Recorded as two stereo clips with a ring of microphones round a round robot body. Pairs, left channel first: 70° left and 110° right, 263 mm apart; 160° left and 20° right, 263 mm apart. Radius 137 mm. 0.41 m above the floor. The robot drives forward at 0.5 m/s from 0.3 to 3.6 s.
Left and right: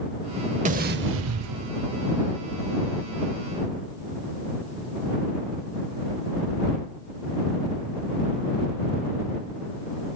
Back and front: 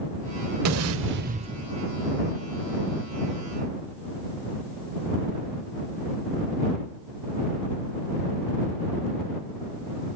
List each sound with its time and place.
0.7 s an explosion: 50° right, 0.6 m; by 1.7 s 110° right, 0.5 m